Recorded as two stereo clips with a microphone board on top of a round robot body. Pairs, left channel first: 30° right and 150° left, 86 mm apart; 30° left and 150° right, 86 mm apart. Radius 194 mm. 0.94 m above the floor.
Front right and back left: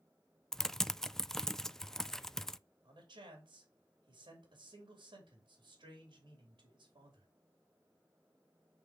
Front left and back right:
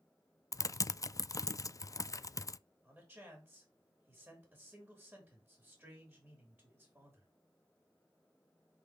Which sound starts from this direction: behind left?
A man speaking, at 2.8 s.